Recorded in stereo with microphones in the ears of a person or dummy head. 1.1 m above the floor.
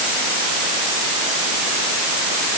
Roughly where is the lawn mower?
No lawn mower in this recording.